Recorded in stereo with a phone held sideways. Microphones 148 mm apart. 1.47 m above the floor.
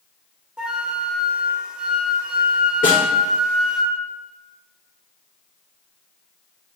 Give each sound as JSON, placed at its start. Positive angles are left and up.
{"t": 0.6, "sound": "a flute", "side_deg": -5, "distance_m": 1.2}
{"t": 2.8, "sound": "a snare drum", "side_deg": 75, "distance_m": 3.5}